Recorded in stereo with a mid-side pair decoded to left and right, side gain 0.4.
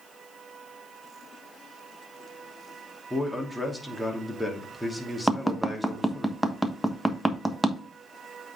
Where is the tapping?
10° right, 1.2 m.